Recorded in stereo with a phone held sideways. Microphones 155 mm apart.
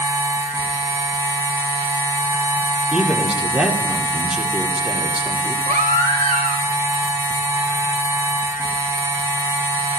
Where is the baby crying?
55° right (ahead or behind), 2 m.